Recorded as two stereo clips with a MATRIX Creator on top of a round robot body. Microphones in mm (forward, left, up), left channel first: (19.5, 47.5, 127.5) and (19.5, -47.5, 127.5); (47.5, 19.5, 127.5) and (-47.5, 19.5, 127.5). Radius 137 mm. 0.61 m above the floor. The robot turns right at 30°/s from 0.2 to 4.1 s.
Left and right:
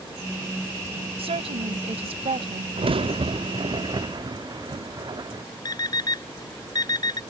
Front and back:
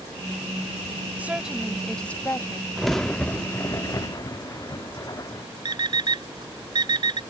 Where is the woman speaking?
105° right; by 2.7 s 60° right.